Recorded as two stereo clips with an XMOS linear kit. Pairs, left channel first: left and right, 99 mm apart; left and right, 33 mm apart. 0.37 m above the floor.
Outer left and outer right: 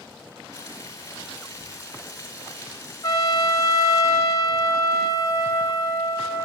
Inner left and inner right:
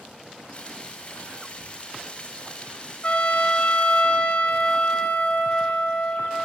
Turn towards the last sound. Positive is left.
turn(degrees=40)  # may be behind; listen again after turning